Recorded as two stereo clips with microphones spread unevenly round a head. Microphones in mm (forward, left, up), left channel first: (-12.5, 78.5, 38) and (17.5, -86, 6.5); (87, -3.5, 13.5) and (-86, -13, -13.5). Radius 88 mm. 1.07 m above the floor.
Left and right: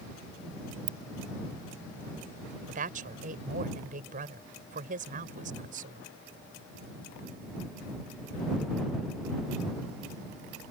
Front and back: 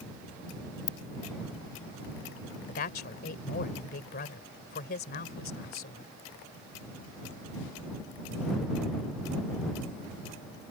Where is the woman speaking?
35° right.